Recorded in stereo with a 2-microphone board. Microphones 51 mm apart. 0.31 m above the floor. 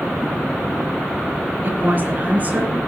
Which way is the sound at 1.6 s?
40° right (ahead or behind).